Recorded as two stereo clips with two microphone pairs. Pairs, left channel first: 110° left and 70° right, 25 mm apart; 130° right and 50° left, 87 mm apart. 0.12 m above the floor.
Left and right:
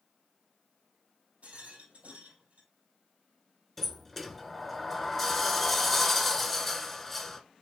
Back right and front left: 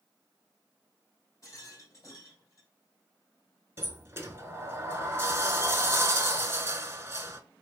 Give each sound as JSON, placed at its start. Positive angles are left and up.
{"t": 1.4, "sound": "a rattle", "azimuth_deg": -75, "distance_m": 2.0}
{"t": 3.8, "sound": "a sliding door", "azimuth_deg": 40, "distance_m": 0.6}